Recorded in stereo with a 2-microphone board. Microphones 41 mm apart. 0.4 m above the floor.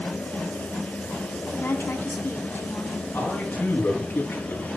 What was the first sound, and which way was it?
A woman speaking, 70° left (ahead or behind).